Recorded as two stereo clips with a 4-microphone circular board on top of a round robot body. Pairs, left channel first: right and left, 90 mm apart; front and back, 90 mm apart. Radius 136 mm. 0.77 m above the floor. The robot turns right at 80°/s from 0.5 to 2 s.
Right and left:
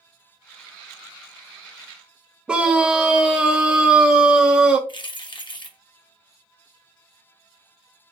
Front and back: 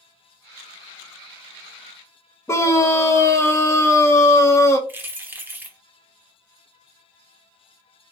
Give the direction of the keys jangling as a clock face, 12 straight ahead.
4 o'clock.